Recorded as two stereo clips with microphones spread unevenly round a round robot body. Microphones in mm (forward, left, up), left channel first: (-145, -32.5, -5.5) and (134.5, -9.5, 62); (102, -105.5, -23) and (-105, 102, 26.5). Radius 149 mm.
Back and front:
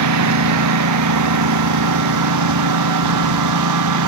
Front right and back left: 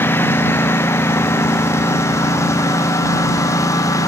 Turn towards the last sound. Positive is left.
turn(degrees=35)